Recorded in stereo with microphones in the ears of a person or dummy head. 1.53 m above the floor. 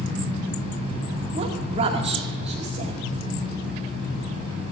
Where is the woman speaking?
40° right (ahead or behind), 2.5 m.